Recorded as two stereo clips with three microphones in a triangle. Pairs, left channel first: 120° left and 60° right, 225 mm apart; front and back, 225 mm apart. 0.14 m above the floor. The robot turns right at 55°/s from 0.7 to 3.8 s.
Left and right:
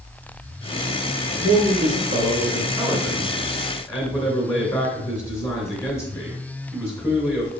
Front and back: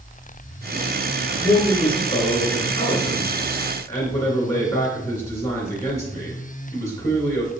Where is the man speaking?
75° right, 1.7 m; by 7.5 s 55° left, 1.7 m.